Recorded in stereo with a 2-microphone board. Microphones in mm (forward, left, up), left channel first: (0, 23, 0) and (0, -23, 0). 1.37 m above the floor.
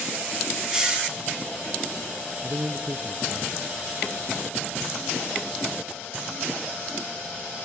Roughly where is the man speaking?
Right.